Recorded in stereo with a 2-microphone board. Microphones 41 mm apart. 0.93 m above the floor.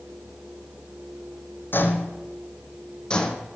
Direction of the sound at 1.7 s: 55° left (ahead or behind).